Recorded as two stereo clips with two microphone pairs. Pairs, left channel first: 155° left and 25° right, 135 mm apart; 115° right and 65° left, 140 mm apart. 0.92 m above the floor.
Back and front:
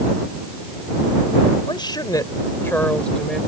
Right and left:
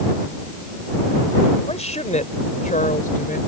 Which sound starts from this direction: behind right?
A woman speaking, at 1.7 s.